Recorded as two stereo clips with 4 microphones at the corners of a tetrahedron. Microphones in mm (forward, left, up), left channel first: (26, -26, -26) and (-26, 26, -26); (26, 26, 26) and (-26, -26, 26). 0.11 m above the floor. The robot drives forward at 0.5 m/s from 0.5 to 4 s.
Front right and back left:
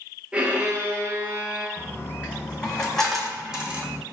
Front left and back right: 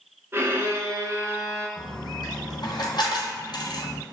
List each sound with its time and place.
0.3 s a violin: 165° right, 0.8 m; by 1.7 s 175° right, 1.2 m
1.8 s a dropped coin: 25° left, 1.5 m; by 4.0 s 75° left, 0.7 m